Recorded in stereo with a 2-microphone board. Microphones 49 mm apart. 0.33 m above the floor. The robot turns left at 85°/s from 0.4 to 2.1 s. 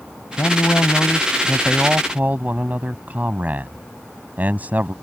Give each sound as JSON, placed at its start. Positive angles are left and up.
{"t": 0.4, "sound": "a man speaking", "azimuth_deg": 100}